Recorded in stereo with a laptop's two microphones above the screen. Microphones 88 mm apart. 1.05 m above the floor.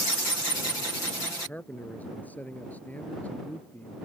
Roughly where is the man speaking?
Centre.